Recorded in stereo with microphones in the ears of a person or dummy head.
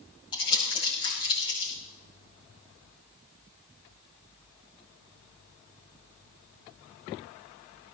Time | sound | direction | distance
0.3 | crumpling | 25° left (ahead or behind) | 9 m